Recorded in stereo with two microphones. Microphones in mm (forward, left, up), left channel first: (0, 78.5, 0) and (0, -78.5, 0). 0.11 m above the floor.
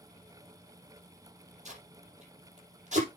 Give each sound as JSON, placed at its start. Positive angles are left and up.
{"t": 1.6, "sound": "tape being pulled", "side_deg": -50, "distance_m": 5.5}